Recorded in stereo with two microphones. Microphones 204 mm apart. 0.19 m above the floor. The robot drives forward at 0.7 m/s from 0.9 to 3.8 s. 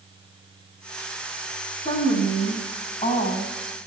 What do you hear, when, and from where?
1.9 s a woman speaking: 35° left (ahead or behind), 6.5 m; by 3.5 s 30° left (ahead or behind), 7.5 m